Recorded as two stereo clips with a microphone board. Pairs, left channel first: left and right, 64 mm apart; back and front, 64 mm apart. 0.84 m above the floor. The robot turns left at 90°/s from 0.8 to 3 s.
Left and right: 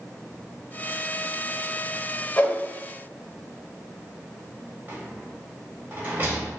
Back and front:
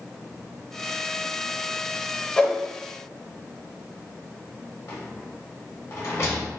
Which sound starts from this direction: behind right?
A rattle, at 4.9 s.